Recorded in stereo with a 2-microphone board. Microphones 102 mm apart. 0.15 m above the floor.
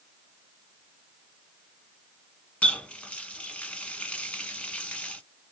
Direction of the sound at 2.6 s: 10° left (ahead or behind).